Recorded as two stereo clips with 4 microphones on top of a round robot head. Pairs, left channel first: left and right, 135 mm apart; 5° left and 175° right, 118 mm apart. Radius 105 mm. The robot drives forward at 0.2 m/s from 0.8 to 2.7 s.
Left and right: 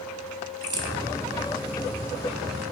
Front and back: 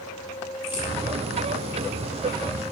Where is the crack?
45° right, 0.8 m.